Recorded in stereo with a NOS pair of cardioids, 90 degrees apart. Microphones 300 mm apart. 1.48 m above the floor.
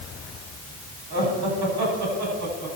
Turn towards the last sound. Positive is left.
turn(degrees=-65)